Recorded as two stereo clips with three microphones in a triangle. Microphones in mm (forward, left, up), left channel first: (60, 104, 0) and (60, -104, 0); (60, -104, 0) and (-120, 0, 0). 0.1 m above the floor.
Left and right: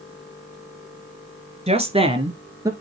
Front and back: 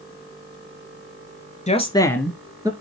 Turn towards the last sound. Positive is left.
turn(degrees=-150)